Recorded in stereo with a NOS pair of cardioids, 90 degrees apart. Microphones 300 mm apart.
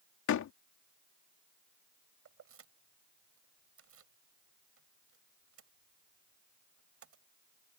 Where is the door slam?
70° left.